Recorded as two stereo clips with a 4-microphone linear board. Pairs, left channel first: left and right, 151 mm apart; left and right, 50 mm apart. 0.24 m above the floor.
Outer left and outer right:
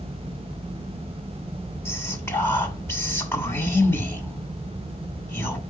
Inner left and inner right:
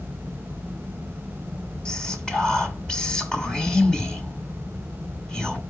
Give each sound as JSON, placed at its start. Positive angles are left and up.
{"t": 1.9, "sound": "whispering", "side_deg": 15, "distance_m": 2.5}